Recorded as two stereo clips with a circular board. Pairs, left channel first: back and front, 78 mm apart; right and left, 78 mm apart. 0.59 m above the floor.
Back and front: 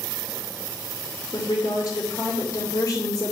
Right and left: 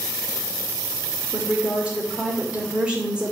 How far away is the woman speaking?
About 2 m.